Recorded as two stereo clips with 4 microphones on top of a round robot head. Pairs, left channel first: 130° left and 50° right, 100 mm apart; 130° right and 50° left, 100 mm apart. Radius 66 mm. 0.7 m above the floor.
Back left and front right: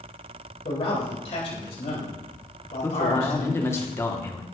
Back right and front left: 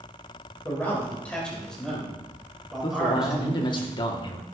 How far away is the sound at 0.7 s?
About 4.5 m.